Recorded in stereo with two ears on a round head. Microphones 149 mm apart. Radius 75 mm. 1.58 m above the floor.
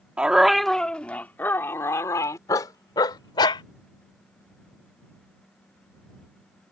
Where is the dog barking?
5° right (ahead or behind); by 3.6 s 30° left (ahead or behind).